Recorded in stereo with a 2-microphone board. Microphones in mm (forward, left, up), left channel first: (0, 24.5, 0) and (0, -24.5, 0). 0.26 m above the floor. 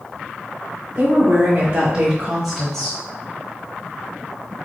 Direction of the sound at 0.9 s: 45° right (ahead or behind).